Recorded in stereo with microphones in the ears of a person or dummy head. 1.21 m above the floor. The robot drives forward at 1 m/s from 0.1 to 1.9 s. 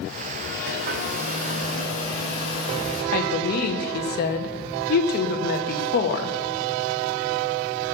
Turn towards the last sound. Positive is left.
turn(degrees=45)  # may be behind; listen again after turning